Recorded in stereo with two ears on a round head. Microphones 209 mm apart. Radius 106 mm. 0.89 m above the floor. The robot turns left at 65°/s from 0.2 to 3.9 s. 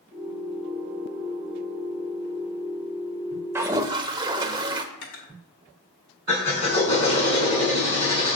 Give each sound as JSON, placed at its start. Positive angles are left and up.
{"t": 3.5, "sound": "a toilet flushing", "side_deg": -10, "distance_m": 0.6}
{"t": 4.9, "sound": "cutlery clinking", "side_deg": 60, "distance_m": 2.0}
{"t": 6.3, "sound": "a drill", "side_deg": 25, "distance_m": 4.5}